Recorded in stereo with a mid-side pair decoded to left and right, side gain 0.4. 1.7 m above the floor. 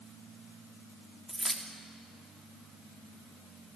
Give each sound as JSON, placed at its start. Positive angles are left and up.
{"t": 1.3, "sound": "keys jangling", "azimuth_deg": -10, "distance_m": 3.0}